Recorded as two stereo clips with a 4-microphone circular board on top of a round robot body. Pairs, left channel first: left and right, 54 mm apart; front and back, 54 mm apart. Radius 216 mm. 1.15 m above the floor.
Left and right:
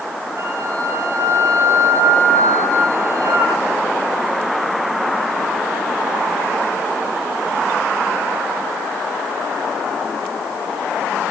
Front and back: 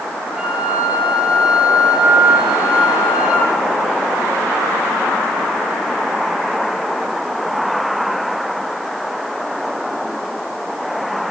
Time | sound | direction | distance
0.4 | a flute | 110° right | 9.5 m